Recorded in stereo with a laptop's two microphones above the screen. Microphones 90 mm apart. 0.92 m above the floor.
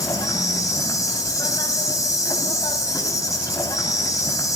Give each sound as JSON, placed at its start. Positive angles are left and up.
{"t": 0.0, "sound": "an insect", "side_deg": 40, "distance_m": 4.5}